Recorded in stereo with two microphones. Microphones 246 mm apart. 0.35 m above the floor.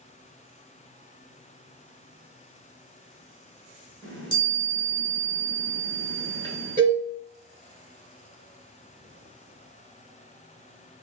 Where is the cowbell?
30° right (ahead or behind), 1.4 m.